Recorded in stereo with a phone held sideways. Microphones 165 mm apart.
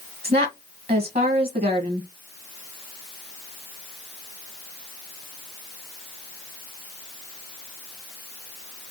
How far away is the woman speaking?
About 1.3 m.